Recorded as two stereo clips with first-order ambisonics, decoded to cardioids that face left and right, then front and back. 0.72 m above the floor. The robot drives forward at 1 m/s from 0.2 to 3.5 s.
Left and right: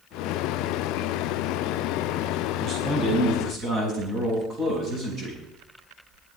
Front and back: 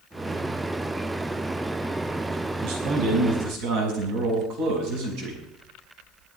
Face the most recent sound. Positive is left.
turn(degrees=-155)